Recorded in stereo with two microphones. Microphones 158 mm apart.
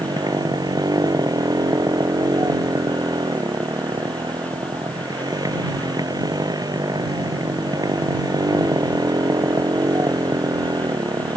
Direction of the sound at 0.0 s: 25° right (ahead or behind).